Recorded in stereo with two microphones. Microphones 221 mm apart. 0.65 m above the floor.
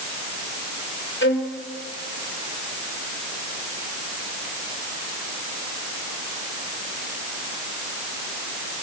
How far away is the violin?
About 3 m.